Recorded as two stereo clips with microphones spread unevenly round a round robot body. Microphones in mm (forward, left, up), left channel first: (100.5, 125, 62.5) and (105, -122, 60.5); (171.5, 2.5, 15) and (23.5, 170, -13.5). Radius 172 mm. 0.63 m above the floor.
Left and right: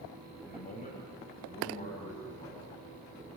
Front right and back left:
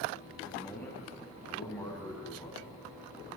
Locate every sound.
0.5 s a man speaking: 35° left, 4.5 m; by 2.8 s 25° left, 6 m